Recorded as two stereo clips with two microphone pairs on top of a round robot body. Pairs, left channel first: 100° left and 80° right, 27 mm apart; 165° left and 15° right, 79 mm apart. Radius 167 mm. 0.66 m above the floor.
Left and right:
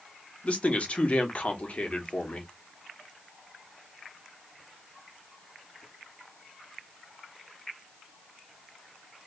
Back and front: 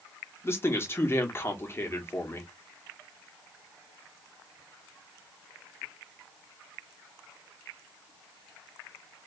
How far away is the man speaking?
About 1.5 m.